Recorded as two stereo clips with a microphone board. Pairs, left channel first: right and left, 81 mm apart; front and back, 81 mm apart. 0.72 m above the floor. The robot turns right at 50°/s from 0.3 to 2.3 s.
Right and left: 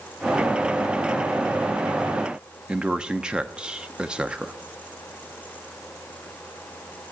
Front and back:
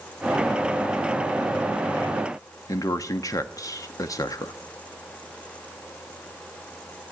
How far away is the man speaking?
About 0.9 m.